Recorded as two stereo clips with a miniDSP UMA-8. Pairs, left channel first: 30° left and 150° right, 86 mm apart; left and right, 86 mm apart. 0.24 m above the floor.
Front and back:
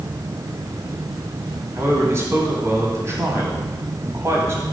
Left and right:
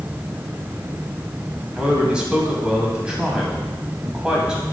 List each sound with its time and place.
1.8 s a man speaking: 160° right, 1.8 m